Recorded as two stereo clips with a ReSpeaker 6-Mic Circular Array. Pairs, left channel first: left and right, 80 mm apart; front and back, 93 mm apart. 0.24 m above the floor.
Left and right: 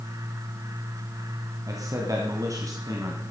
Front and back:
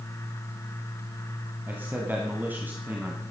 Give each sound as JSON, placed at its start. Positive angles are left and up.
{"t": 1.7, "sound": "a man speaking", "azimuth_deg": -115, "distance_m": 2.0}